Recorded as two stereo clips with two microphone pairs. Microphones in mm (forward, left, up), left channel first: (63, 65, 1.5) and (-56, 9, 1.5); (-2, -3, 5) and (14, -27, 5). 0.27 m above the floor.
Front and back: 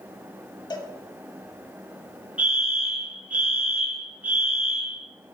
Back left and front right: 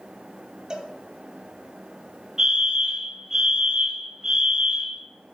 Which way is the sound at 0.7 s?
10° right.